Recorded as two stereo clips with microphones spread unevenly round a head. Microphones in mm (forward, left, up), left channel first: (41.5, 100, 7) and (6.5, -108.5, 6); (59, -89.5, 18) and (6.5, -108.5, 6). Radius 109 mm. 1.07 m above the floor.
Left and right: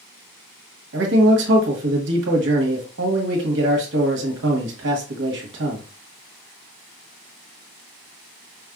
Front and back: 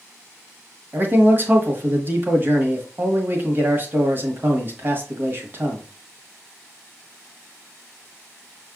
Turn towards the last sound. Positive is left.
turn(degrees=-125)